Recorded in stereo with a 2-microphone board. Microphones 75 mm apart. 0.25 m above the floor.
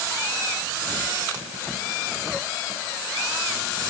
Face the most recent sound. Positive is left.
No sound to turn to.